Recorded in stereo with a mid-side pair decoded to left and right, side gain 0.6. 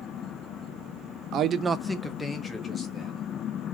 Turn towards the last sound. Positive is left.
turn(degrees=35)